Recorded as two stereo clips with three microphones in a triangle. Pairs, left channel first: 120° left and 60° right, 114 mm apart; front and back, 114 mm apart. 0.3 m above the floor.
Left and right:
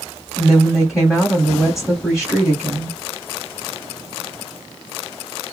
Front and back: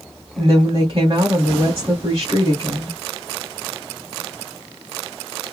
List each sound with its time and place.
0.4 s a woman speaking: 145° right, 2 m